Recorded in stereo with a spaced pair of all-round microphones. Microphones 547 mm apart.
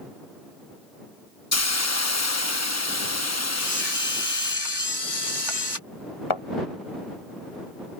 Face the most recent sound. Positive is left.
turn(degrees=60)  # may be behind; listen again after turning